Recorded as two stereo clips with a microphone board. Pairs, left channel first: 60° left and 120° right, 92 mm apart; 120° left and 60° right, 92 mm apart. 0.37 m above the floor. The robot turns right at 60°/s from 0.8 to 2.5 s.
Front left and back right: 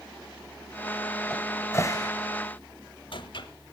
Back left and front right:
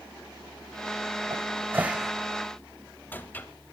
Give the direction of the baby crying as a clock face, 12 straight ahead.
I don't hear a baby crying.